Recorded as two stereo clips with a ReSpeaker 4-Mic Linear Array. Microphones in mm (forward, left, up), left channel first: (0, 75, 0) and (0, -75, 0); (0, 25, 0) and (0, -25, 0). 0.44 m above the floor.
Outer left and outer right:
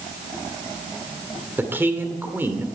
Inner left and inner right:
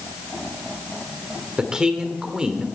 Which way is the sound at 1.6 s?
15° right (ahead or behind).